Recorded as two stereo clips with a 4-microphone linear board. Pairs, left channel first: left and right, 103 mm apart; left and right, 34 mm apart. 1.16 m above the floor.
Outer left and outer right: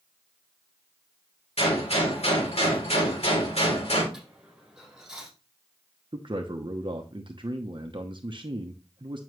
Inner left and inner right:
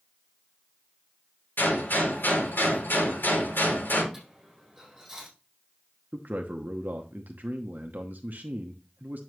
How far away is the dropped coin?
About 4 m.